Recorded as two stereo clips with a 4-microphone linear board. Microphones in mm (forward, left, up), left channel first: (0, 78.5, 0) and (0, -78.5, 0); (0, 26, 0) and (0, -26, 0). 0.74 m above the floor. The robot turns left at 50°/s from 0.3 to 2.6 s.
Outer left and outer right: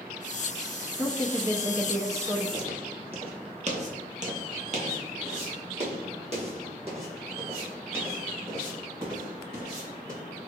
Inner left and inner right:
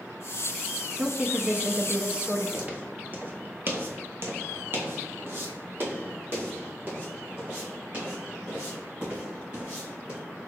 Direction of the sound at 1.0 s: 20° right (ahead or behind).